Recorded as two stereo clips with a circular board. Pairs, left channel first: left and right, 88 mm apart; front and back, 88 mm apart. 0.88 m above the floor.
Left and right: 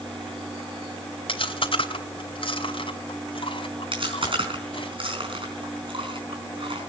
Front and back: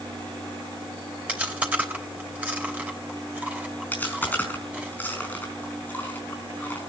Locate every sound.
1.3 s chewing: 105° left, 3 m
3.9 s chewing: 70° right, 4.5 m